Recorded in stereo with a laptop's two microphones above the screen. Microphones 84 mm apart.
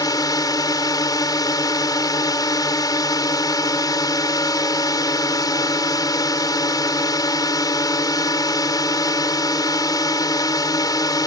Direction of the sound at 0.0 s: 50° left (ahead or behind).